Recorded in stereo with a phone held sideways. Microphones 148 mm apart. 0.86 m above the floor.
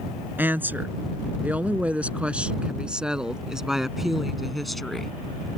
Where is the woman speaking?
15° right (ahead or behind); by 5.1 s centre (ahead or behind).